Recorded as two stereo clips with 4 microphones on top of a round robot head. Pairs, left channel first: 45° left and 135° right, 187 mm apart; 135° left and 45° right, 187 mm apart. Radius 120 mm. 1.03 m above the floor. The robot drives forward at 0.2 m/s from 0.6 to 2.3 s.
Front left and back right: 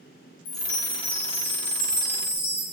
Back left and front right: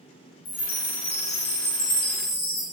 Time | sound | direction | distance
0.5 | a chime | 90° left | 0.5 m